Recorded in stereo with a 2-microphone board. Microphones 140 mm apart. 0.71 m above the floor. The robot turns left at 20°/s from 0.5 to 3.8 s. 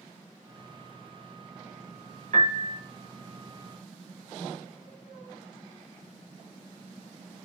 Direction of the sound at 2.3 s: 55° right (ahead or behind).